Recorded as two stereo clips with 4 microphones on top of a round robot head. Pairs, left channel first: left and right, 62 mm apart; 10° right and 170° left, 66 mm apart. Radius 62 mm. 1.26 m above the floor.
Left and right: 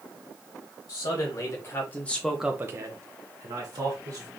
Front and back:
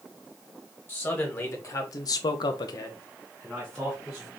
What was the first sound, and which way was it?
A man speaking, 50° left.